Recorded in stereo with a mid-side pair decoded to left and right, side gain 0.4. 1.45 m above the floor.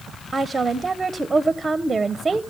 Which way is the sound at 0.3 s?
30° right.